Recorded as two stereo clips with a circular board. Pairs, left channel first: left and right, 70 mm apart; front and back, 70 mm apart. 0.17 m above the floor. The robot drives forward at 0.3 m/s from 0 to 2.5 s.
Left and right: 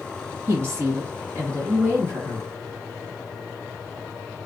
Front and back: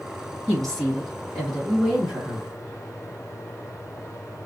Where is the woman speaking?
75° right, 1.8 m; by 2.5 s 105° right, 1.8 m.